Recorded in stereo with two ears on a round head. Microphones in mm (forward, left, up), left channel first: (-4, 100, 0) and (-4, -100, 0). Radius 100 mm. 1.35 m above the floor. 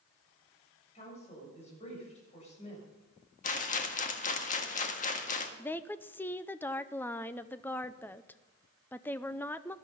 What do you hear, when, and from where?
0.9 s a woman speaking: 30° left (ahead or behind), 6.5 m
3.4 s a rattle: 35° left (ahead or behind), 1.5 m
5.6 s a woman speaking: 10° left (ahead or behind), 0.5 m